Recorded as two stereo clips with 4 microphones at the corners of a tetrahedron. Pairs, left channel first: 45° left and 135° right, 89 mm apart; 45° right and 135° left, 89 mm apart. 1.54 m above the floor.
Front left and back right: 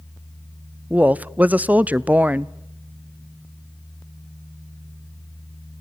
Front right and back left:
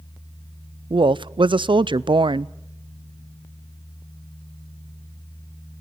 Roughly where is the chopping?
I don't hear chopping.